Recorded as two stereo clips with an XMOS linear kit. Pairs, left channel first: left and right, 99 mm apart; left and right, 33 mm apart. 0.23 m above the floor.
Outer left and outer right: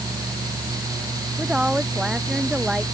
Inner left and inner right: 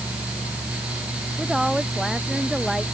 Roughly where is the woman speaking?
Centre.